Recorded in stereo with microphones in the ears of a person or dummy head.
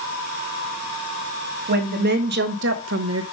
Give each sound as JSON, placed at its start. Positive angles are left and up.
{"t": 1.7, "sound": "a woman speaking", "side_deg": -50, "distance_m": 1.3}